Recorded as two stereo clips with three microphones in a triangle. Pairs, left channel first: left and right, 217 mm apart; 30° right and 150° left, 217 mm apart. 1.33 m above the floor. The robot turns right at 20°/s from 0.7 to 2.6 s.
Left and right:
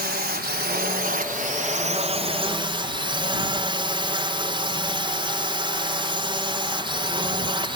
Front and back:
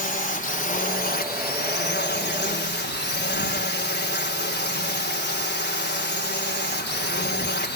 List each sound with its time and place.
0.0 s a drone: 65° right; by 7.8 s 30° right